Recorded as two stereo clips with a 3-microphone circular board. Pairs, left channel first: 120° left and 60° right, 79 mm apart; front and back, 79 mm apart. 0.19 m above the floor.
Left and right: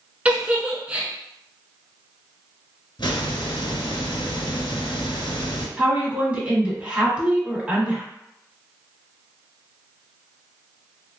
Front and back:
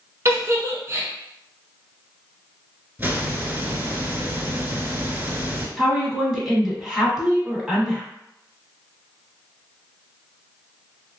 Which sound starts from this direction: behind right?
A giggle, at 0.2 s.